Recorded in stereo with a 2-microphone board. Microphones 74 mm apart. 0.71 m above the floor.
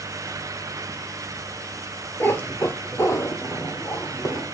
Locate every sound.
2.2 s a cat meowing: 25° left (ahead or behind), 1.2 m; by 4.5 s 45° left (ahead or behind), 3.5 m